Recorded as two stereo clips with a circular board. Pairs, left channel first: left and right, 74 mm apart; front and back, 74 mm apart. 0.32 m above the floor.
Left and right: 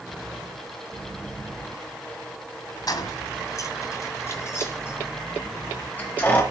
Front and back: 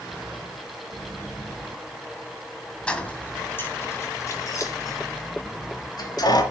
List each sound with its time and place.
2.9 s keys jangling: 75° left, 1.8 m; by 6.4 s 25° left, 4 m